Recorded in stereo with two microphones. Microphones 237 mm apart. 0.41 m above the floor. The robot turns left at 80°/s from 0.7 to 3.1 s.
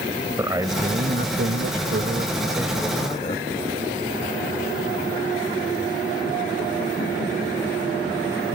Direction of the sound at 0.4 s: 15° right.